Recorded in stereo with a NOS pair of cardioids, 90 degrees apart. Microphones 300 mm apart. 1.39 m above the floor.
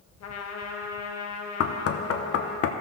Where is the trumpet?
60° left, 1.2 m.